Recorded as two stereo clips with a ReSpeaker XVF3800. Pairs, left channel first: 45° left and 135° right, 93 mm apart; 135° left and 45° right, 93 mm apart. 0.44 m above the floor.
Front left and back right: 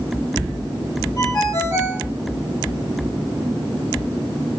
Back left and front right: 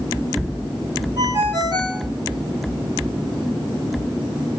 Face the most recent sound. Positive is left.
turn(degrees=-5)